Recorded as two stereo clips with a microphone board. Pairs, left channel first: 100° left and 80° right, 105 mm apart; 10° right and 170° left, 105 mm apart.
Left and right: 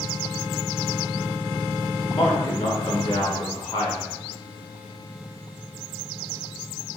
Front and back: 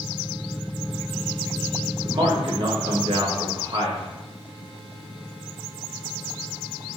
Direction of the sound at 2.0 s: 135° left.